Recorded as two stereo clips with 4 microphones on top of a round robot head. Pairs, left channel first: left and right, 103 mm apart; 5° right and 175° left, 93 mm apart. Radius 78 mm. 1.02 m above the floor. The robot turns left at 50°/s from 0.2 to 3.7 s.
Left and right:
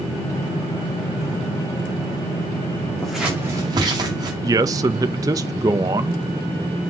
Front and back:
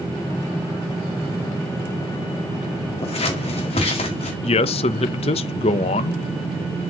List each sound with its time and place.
3.0 s scissors: 5° left, 2 m; by 4.3 s 30° right, 2 m
4.4 s a man speaking: 30° right, 0.5 m